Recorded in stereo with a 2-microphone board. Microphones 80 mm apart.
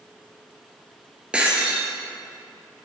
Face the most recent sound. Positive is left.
turn(degrees=-10)  # may be behind; listen again after turning